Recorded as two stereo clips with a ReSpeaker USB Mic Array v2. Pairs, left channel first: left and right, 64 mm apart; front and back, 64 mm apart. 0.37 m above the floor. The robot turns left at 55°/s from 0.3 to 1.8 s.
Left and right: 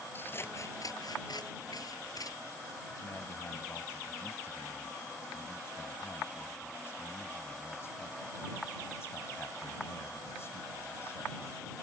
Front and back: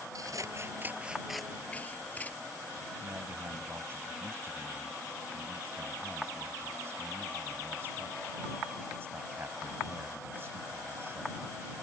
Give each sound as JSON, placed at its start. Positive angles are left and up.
{"t": 0.1, "sound": "scissors", "azimuth_deg": 150}
{"t": 3.0, "sound": "a man speaking", "azimuth_deg": 135}